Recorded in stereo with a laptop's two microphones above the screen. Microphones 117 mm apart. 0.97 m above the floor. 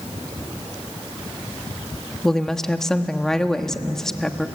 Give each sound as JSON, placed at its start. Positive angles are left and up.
{"t": 2.2, "sound": "a woman speaking", "side_deg": 5, "distance_m": 1.3}